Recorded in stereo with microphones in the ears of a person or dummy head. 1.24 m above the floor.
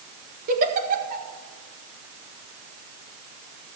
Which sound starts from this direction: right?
A giggle, at 0.5 s.